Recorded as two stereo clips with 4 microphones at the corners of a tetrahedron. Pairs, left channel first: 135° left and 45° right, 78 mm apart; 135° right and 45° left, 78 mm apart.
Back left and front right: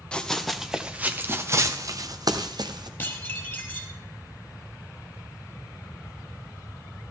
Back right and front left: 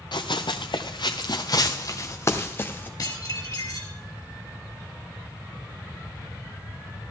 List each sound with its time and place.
0.1 s running footsteps: 145° right, 1.2 m; by 2.9 s 70° right, 1.8 m
3.0 s dishes clattering: 165° right, 2.5 m